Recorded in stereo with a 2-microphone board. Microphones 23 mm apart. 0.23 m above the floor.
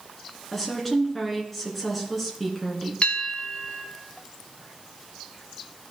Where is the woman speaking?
5° left (ahead or behind), 2.5 m.